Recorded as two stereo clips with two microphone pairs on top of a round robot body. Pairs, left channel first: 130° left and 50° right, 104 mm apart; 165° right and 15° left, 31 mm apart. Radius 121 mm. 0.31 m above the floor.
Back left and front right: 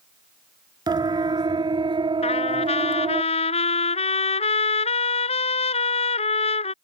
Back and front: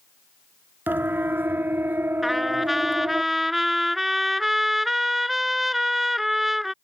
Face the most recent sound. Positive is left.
turn(degrees=95)